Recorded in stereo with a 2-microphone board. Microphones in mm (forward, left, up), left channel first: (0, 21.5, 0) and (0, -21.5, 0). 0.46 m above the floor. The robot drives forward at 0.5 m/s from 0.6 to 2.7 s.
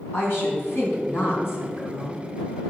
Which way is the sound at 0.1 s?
65° left (ahead or behind).